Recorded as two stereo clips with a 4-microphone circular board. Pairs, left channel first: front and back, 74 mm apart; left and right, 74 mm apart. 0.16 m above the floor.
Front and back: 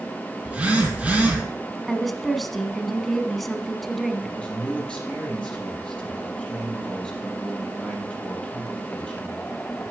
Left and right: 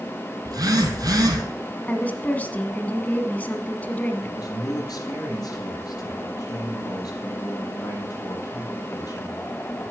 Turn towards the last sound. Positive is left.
turn(degrees=70)